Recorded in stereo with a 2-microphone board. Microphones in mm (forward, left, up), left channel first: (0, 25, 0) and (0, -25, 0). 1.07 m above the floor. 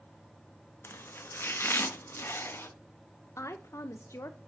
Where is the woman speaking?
75° left (ahead or behind), 0.5 m.